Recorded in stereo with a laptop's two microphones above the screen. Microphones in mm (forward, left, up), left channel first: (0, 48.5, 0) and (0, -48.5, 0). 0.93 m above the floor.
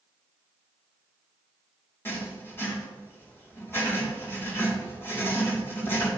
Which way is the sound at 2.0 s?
25° left (ahead or behind).